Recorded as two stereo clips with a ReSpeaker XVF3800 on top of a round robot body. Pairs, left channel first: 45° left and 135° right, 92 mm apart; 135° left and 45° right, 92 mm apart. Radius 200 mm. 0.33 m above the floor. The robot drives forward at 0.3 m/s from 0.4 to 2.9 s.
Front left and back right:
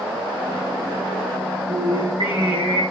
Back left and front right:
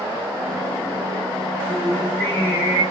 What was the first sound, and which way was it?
Singing, 155° right.